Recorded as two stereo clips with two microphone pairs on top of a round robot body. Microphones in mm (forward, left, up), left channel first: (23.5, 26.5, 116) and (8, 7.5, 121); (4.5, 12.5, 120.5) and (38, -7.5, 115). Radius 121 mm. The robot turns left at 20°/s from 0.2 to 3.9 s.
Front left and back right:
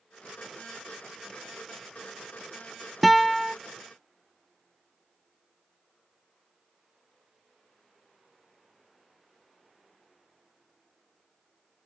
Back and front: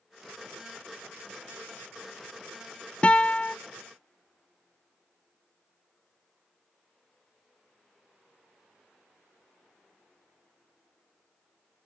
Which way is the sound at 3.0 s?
110° left.